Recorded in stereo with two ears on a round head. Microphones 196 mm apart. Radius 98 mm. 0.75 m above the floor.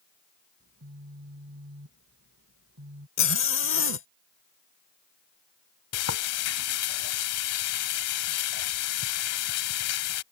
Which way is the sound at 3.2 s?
60° left (ahead or behind).